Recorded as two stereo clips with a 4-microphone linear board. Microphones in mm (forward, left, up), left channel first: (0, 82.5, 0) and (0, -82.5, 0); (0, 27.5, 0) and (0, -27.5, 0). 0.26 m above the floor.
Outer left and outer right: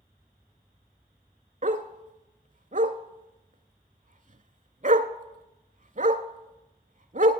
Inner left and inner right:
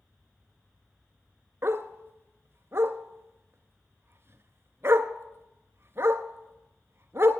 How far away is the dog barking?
About 0.7 m.